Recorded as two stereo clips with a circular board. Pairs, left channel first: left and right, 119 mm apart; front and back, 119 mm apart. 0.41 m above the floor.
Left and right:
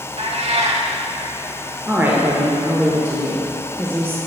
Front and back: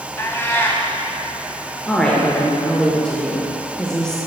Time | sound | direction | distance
0.2 | a cat meowing | 70° right | 1.0 m
1.9 | a woman speaking | 70° right | 1.0 m